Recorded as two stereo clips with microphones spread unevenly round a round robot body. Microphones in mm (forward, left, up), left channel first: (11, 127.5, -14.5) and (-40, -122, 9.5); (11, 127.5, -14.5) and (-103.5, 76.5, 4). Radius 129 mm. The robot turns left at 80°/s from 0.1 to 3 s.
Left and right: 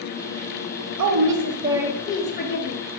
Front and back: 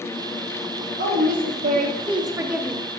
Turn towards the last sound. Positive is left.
turn(degrees=80)